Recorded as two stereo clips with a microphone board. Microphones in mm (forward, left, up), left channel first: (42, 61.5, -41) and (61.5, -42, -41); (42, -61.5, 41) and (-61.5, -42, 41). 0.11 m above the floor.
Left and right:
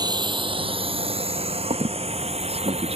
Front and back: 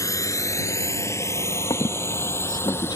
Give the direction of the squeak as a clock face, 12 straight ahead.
2 o'clock.